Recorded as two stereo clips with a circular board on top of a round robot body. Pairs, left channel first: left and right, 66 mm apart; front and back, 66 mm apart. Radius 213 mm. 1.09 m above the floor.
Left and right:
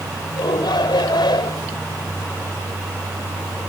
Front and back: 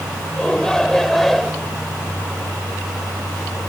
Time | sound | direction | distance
0.4 | a shout | 80° left | ?